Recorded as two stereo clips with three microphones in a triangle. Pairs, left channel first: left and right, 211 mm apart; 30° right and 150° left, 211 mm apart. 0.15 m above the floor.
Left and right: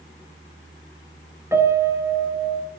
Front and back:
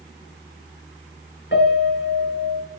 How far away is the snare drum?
No snare drum in this recording.